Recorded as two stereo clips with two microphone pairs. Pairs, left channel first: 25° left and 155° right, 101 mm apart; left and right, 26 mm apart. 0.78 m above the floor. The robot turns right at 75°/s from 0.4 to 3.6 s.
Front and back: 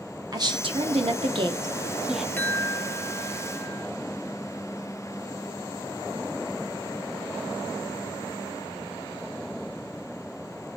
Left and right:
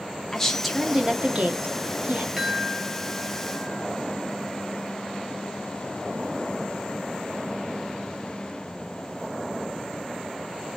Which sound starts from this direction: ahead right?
A chime, at 2.4 s.